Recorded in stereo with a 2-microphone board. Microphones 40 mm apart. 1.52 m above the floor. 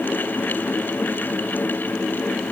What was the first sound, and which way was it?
Only background noise.